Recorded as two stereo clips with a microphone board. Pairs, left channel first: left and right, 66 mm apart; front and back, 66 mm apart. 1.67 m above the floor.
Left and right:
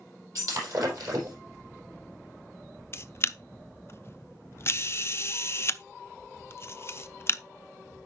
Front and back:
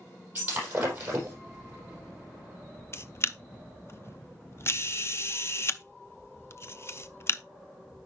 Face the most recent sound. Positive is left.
turn(degrees=40)